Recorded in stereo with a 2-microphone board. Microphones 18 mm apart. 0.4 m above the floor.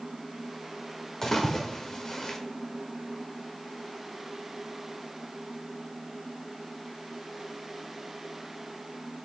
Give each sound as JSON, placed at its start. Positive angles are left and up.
{"t": 1.2, "sound": "a splash", "side_deg": 30, "distance_m": 1.2}